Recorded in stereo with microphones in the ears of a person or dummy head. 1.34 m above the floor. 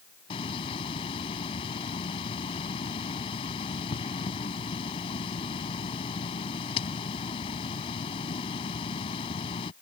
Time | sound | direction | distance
0.3 | a hiss | 30° left (ahead or behind) | ?